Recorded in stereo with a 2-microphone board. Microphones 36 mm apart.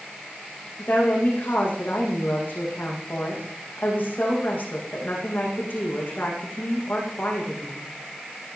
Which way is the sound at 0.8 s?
55° left (ahead or behind).